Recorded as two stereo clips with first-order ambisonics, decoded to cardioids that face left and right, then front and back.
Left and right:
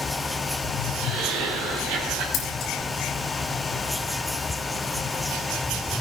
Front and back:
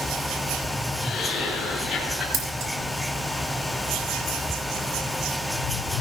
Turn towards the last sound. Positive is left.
turn(degrees=145)